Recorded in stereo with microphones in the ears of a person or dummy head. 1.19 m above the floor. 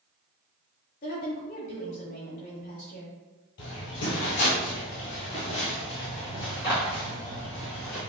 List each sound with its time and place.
1.0 s a woman speaking: 35° left (ahead or behind), 1.6 m
3.6 s footsteps: 50° left (ahead or behind), 2.0 m; by 8.0 s 10° left (ahead or behind), 3 m